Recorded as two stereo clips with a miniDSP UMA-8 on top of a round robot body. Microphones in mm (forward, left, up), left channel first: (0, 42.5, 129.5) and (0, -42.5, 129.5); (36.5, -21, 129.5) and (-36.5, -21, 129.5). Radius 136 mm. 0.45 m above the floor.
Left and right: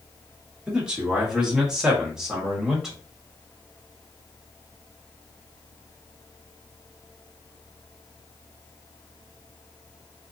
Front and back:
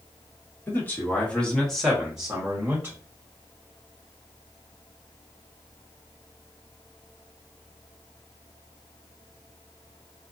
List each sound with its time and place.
0.7 s a man speaking: 20° right, 1.6 m; by 3.0 s 175° right, 1.5 m